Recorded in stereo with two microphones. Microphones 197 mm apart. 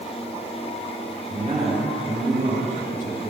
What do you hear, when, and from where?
1.3 s a man speaking: 40° right (ahead or behind), 4.5 m